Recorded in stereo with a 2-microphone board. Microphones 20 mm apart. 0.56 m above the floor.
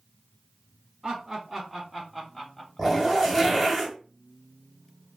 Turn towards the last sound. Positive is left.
turn(degrees=-10)  # may be behind; listen again after turning